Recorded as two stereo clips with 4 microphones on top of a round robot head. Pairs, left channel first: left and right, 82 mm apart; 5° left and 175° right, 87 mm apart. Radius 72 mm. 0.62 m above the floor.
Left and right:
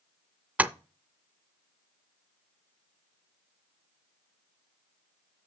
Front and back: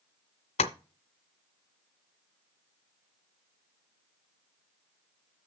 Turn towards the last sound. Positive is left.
turn(degrees=-20)